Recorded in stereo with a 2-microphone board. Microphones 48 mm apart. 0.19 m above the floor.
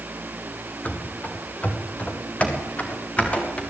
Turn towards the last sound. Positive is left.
turn(degrees=25)  # may be behind; listen again after turning